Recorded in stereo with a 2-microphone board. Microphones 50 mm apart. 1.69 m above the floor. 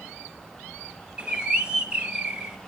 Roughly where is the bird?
Centre.